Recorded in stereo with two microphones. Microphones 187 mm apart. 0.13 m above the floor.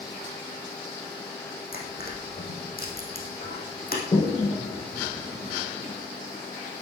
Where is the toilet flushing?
30° left (ahead or behind), 1.9 m.